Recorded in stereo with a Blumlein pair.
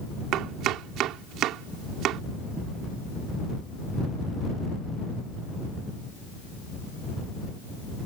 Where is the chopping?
35° right.